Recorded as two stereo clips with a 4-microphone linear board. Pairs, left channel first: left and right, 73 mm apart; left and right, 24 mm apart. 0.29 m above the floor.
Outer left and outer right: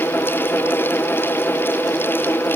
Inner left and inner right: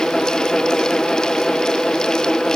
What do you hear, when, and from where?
Only background noise.